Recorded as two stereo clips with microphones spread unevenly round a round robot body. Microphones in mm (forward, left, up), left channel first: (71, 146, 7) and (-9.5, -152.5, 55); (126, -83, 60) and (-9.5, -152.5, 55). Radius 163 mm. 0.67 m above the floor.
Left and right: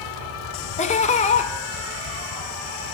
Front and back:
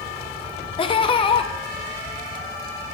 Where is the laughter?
50° left, 0.5 m.